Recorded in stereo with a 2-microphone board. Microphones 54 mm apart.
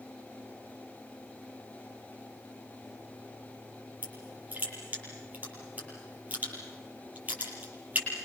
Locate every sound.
4.0 s crushing: 35° right (ahead or behind), 8.5 m